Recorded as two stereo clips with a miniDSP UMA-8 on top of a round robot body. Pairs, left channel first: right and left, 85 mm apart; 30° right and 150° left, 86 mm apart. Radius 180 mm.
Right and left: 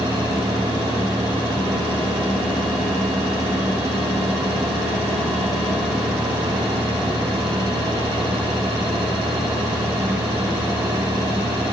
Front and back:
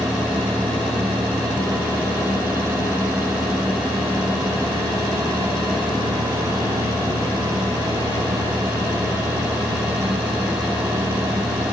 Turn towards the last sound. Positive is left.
No sound to turn to.